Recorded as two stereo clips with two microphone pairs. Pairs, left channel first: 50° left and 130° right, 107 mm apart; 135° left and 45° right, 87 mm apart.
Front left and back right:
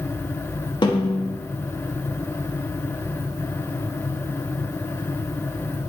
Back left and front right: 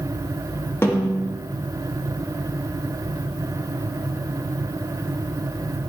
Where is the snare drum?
80° left, 1.5 m.